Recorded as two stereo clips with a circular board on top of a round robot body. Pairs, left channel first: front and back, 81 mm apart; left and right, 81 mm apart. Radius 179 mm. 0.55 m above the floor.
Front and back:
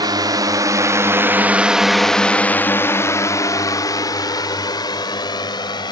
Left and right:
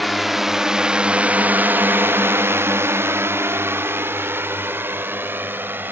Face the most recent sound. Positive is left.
turn(degrees=-25)